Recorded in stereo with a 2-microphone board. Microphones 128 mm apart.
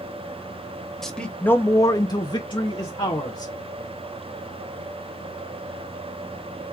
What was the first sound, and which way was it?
A man speaking, 5° left (ahead or behind).